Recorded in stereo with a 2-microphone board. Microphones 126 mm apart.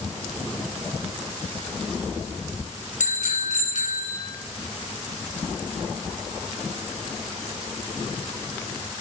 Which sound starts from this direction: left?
A bicycle bell, at 3.0 s.